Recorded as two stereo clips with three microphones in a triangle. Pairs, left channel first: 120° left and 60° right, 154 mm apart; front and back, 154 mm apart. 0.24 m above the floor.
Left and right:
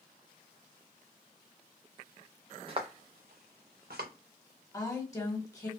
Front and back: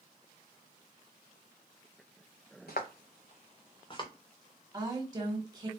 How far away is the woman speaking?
About 1.3 m.